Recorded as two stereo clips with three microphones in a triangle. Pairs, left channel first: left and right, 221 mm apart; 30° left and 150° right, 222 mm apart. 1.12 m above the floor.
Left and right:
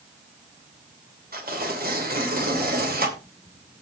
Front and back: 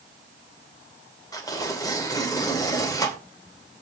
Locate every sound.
1.3 s tearing paper: 45° right, 2.5 m